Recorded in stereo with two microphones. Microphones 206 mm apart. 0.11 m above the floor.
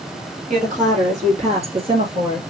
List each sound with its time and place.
0.5 s a woman speaking: 40° right (ahead or behind), 3 m; by 2.4 s 20° right (ahead or behind), 2 m